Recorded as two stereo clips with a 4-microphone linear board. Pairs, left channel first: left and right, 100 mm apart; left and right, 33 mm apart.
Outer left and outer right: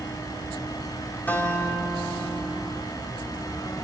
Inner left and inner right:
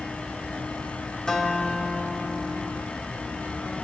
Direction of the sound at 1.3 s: 20° left (ahead or behind).